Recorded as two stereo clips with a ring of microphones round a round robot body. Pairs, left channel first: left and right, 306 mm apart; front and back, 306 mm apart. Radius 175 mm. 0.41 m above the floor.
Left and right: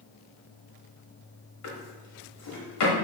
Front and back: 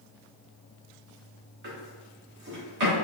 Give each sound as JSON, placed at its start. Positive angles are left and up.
{"t": 1.6, "sound": "a drawer", "azimuth_deg": 120, "distance_m": 1.1}